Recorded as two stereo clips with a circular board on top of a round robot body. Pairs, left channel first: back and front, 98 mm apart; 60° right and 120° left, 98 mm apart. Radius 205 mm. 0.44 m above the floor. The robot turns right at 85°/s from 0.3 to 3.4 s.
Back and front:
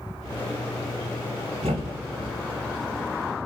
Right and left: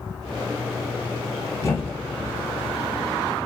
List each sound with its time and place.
1.6 s a thud: 5° right, 1.4 m; by 2.3 s 60° left, 1.4 m